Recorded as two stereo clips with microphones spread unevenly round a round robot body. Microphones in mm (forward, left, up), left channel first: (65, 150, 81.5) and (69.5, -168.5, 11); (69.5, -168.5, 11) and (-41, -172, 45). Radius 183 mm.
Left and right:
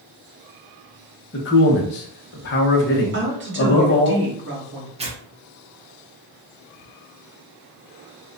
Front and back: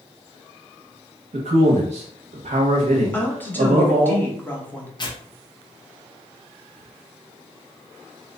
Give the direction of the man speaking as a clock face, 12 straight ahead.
7 o'clock.